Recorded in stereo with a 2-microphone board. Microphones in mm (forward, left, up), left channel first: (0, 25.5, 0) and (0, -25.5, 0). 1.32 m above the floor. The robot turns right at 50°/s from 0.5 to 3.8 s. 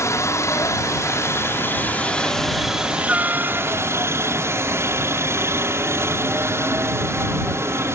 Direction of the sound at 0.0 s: 75° left.